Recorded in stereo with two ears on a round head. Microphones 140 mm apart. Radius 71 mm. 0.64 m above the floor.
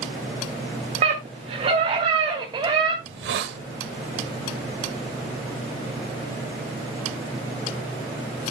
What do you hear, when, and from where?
1.0 s a scream: 45° right (ahead or behind), 1.7 m; by 2.9 s 30° right (ahead or behind), 2.5 m
3.0 s a hiss: 80° right, 1.0 m